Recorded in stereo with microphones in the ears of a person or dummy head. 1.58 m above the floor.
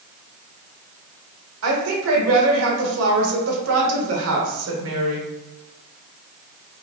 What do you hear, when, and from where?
1.6 s a woman speaking: 80° right, 1.6 m